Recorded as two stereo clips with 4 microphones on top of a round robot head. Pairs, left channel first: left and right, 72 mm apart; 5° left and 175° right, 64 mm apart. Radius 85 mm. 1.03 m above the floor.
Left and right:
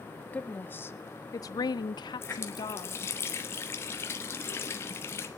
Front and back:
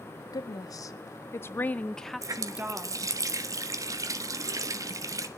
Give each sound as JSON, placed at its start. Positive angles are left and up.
{"t": 0.3, "sound": "a woman speaking", "azimuth_deg": 20, "distance_m": 1.4}
{"t": 2.2, "sound": "a running tap", "azimuth_deg": 150, "distance_m": 1.3}